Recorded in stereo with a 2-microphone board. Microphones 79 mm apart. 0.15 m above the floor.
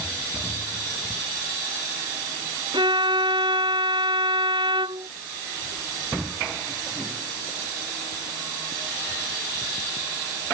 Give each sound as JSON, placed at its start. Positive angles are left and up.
{"t": 2.7, "sound": "a violin", "side_deg": -80}